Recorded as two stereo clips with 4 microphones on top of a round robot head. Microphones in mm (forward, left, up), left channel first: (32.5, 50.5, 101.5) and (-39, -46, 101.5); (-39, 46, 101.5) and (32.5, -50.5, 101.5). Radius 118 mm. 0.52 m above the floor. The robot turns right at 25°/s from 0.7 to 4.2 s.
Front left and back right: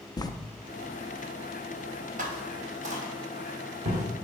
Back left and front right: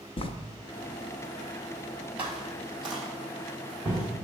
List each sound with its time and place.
0.2 s writing: 100° left, 0.6 m
2.2 s footsteps: 130° right, 0.8 m